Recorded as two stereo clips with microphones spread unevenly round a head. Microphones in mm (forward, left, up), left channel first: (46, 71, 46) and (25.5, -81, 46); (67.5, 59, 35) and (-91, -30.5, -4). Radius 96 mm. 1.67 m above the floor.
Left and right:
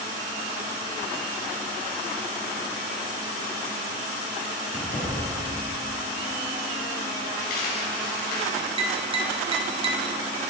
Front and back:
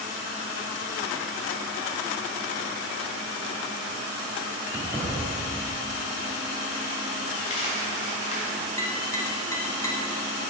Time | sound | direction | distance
4.7 | keys jangling | 125° left | 2.5 m
7.4 | a dropped coin | 70° left | 3 m
8.8 | tapping | 45° right | 1.0 m